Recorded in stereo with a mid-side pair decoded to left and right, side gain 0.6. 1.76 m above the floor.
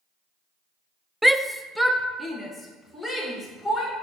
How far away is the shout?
About 0.5 m.